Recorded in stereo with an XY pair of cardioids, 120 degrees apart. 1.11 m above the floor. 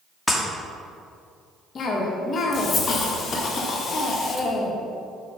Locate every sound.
0.3 s breaking glass: 5° left, 1.4 m
1.8 s a cough: 40° left, 1.5 m